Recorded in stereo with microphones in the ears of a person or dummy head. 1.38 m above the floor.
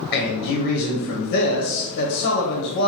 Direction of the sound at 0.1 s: 55° left (ahead or behind).